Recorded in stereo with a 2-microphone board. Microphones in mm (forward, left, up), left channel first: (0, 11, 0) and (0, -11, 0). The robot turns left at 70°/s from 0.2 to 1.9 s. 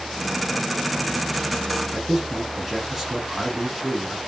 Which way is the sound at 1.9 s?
10° right (ahead or behind).